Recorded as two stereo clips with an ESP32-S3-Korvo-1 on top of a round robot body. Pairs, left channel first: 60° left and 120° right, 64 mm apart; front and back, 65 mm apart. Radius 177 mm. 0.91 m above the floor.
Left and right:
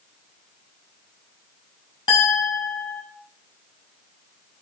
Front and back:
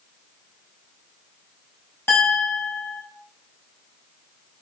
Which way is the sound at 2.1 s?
55° left.